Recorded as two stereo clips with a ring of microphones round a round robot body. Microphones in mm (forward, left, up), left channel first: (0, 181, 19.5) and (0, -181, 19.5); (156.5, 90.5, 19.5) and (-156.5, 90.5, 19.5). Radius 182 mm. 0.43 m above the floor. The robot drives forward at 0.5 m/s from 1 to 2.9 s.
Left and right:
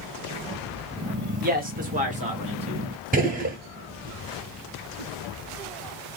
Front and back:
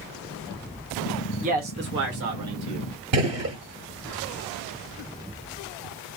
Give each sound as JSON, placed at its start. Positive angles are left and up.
{"t": 1.4, "sound": "a man speaking", "azimuth_deg": -130, "distance_m": 0.8}
{"t": 3.1, "sound": "a gunshot", "azimuth_deg": -155, "distance_m": 0.8}